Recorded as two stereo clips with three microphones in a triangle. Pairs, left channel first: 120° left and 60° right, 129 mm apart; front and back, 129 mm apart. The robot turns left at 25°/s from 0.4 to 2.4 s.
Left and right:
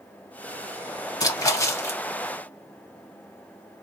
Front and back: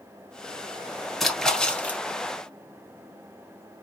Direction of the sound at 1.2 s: 85° left.